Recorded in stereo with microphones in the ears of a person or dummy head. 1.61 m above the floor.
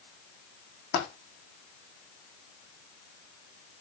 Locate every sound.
0.9 s a dropped coin: 55° left (ahead or behind), 4 m